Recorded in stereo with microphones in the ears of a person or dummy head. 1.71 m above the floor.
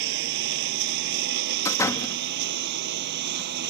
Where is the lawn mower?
65° right (ahead or behind); by 3.7 s 55° right (ahead or behind).